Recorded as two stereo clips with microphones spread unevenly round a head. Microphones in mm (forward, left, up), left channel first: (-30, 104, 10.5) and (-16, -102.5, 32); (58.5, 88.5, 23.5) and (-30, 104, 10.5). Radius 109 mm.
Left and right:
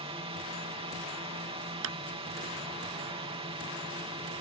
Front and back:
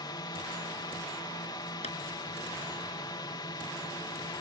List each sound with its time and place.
0.0 s a drone: 30° right
1.8 s a clap: 60° right